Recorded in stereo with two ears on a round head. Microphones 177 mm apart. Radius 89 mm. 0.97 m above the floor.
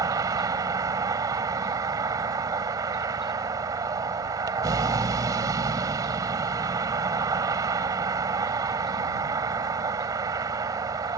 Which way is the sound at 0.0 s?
20° right (ahead or behind).